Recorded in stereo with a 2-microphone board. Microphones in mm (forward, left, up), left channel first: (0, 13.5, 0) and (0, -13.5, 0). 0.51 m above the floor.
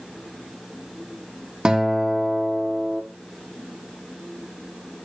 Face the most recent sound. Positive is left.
turn(degrees=-30)  # may be behind; listen again after turning